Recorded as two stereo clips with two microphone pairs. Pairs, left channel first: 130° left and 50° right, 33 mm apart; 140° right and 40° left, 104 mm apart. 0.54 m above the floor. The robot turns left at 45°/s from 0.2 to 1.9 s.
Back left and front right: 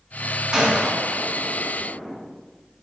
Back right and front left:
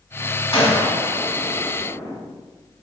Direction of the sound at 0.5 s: 115° right.